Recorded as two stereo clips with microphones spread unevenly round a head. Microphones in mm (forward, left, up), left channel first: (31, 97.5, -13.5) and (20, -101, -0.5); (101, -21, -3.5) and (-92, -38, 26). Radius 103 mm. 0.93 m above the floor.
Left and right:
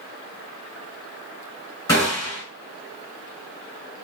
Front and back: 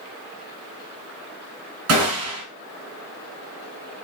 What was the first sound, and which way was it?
A gunshot, 165° left.